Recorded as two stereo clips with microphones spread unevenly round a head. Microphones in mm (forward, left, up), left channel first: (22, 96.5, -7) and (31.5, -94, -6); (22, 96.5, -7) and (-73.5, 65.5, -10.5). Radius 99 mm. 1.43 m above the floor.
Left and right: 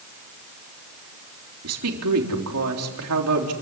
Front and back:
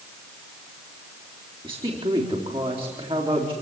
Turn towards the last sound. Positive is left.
turn(degrees=-95)